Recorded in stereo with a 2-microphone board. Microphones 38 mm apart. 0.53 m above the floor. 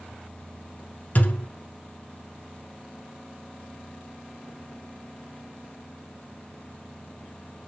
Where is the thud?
50° left (ahead or behind), 0.9 m.